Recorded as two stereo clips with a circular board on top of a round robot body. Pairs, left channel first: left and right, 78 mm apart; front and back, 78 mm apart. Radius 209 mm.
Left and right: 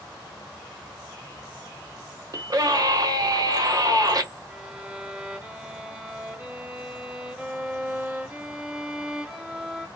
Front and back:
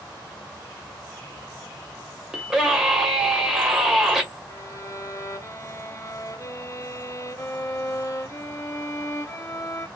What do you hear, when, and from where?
2.3 s a scream: 100° right, 1.1 m
4.5 s a violin: 20° right, 1.0 m